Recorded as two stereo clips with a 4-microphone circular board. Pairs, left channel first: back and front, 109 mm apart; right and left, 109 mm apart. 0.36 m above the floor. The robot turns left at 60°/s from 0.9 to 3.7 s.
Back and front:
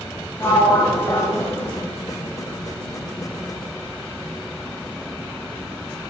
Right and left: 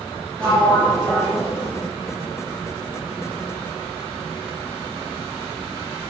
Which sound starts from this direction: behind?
A sliding door, at 0.4 s.